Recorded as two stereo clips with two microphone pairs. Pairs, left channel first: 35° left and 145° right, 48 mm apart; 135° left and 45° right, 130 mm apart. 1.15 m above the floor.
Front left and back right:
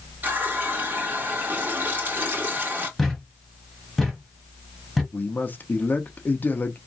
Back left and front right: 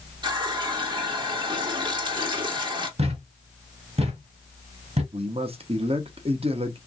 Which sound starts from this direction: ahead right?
A thud, at 3.0 s.